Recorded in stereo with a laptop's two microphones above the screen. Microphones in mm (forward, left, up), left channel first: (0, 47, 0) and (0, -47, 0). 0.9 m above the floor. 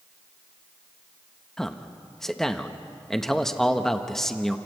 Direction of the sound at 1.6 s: 5° left (ahead or behind).